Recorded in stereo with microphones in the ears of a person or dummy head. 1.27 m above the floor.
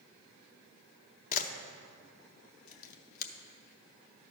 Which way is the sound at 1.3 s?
55° left (ahead or behind).